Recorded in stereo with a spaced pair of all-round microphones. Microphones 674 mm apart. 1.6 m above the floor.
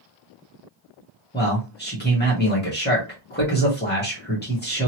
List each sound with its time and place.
1.3 s a man speaking: 15° left (ahead or behind), 1.0 m